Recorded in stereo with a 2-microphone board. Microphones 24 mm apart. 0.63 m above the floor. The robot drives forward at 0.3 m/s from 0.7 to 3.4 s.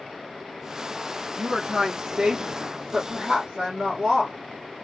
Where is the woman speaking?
55° right (ahead or behind), 1.4 m; by 4.3 s 45° right (ahead or behind), 1.8 m.